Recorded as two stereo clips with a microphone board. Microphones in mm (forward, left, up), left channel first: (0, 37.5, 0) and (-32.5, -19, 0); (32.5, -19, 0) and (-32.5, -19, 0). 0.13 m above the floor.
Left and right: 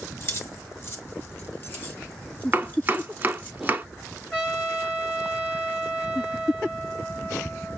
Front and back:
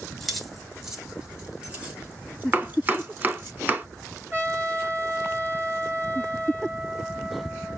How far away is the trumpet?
About 3 m.